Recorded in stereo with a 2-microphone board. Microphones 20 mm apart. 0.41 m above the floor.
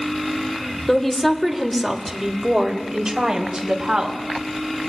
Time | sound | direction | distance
0.9 | a woman speaking | 20° left (ahead or behind) | 1.5 m